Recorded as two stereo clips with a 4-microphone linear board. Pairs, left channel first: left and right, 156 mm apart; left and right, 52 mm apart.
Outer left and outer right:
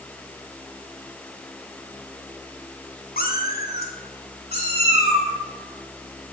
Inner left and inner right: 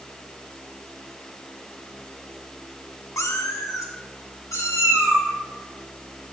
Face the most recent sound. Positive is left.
turn(degrees=85)